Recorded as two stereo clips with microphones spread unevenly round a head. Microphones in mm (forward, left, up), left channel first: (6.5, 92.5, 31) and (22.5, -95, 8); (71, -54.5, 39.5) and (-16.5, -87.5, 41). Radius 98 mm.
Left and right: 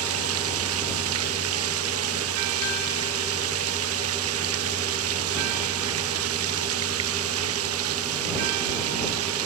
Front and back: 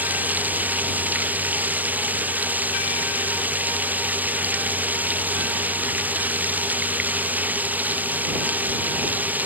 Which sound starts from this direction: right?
Running water, at 0.0 s.